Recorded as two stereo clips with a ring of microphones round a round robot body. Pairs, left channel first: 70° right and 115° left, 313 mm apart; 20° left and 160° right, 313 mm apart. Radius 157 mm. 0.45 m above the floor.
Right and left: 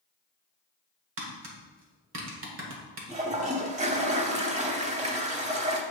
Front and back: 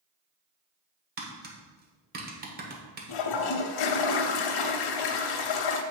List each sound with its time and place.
1.2 s tapping: 150° left, 1.4 m
3.1 s a toilet flushing: 40° left, 0.7 m